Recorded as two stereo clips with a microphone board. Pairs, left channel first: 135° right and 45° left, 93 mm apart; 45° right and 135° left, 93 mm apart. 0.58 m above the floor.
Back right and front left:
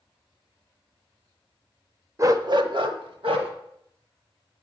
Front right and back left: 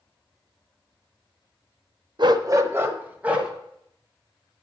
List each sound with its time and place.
2.2 s a dog barking: 100° left, 0.6 m; by 3.5 s 60° left, 1.5 m